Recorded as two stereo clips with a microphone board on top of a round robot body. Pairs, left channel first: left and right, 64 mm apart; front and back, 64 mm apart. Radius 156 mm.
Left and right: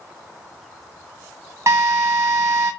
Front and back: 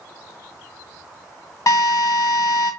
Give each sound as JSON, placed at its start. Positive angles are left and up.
{"t": 1.7, "sound": "a drill", "azimuth_deg": -40, "distance_m": 0.7}